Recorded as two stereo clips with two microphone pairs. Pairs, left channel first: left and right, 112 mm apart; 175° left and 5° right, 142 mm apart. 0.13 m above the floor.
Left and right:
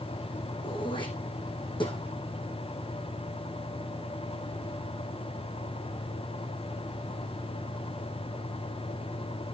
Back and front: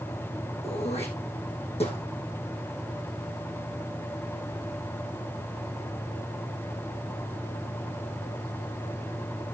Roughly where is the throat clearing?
Behind left.